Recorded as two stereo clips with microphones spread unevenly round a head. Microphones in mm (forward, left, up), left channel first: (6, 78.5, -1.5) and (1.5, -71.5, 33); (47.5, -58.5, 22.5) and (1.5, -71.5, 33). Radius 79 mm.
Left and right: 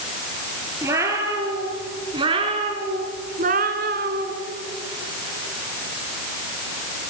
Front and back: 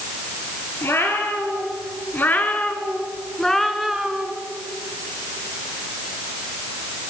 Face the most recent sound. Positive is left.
turn(degrees=-100)